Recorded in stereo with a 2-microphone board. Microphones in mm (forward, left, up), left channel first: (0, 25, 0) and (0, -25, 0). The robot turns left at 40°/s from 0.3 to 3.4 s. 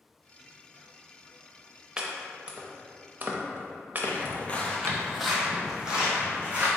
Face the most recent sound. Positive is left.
turn(degrees=-25)  # may be behind; listen again after turning